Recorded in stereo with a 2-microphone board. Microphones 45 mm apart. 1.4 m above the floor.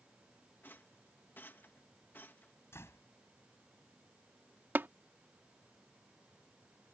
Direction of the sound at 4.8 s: 55° right (ahead or behind).